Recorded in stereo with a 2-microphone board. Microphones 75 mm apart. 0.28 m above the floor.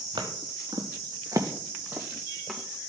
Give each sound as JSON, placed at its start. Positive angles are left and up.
{"t": 0.2, "sound": "footsteps", "side_deg": -80, "distance_m": 1.8}